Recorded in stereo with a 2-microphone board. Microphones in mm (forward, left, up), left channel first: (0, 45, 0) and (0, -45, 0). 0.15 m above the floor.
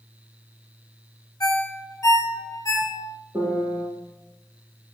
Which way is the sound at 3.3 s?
30° right (ahead or behind).